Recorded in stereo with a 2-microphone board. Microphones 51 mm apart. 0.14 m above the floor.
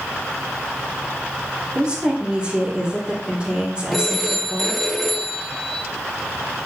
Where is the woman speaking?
20° right (ahead or behind), 4 m.